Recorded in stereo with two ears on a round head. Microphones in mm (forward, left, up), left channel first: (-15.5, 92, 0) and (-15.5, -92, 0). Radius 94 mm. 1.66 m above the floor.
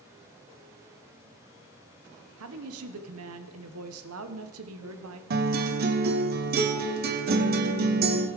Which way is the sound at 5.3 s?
45° right (ahead or behind).